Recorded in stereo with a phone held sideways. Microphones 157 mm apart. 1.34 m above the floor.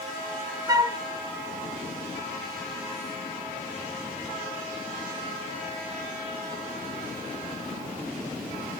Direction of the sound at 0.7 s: 25° right (ahead or behind).